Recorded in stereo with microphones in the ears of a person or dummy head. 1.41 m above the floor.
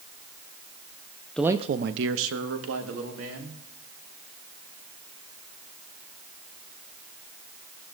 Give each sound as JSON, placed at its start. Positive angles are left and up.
{"t": 1.4, "sound": "a man speaking", "side_deg": 5, "distance_m": 0.5}